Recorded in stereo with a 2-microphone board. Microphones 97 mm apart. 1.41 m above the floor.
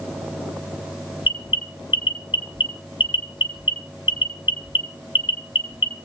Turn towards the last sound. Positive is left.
turn(degrees=50)  # may be behind; listen again after turning